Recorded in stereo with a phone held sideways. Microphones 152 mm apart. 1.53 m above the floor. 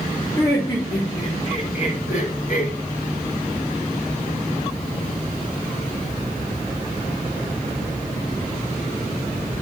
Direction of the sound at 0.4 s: 20° left (ahead or behind).